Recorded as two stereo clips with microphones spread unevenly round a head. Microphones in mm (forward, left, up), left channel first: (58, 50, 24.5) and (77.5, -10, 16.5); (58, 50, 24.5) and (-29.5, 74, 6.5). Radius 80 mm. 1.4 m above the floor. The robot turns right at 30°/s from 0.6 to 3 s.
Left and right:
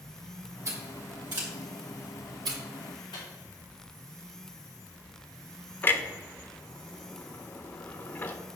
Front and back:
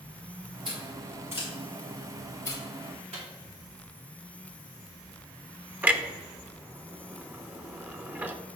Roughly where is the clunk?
Left.